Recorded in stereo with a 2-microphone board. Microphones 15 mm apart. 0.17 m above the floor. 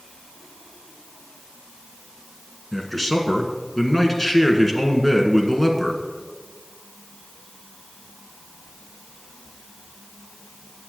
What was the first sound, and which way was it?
A man speaking, 10° left (ahead or behind).